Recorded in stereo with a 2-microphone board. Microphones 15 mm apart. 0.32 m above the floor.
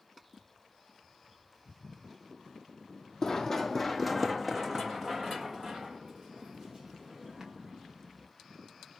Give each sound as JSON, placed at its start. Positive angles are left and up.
{"t": 3.2, "sound": "running footsteps", "side_deg": 35, "distance_m": 0.6}